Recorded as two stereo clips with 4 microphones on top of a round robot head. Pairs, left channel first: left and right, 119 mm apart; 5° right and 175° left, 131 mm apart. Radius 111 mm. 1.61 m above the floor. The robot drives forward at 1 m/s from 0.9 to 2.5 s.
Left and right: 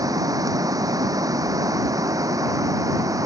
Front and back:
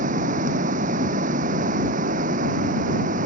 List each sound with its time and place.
0.0 s running water: 150° right